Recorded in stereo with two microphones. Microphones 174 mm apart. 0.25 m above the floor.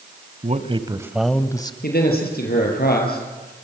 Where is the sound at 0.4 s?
40° right (ahead or behind), 1.5 m; by 1.7 s 25° left (ahead or behind), 1.4 m.